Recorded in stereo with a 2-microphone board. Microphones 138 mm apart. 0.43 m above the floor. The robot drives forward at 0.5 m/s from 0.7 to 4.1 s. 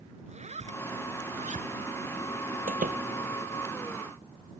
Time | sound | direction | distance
0.3 | a zipper | 55° right (ahead or behind) | ?
2.7 | a door slam | 85° right | ?